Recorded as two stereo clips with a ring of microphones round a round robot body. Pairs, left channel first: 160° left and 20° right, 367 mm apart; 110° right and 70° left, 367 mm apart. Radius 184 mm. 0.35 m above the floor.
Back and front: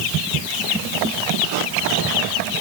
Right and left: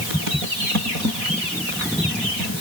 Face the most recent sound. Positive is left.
No sound to turn to.